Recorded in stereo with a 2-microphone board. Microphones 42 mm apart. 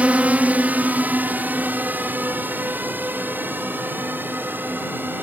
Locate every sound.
0.0 s a drone: 35° right (ahead or behind); by 5.2 s 50° right (ahead or behind)